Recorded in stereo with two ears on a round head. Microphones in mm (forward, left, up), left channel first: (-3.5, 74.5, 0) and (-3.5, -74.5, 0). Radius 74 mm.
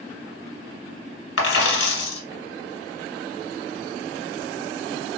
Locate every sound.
1.4 s a dropped coin: 75° left (ahead or behind), 1.4 m